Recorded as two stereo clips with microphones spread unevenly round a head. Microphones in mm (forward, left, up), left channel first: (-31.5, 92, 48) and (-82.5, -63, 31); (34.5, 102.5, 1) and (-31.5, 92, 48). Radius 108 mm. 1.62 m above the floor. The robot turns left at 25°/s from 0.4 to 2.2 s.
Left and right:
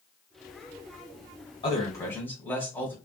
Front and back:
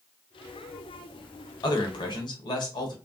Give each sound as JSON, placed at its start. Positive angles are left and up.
{"t": 1.6, "sound": "a man speaking", "azimuth_deg": 5, "distance_m": 1.1}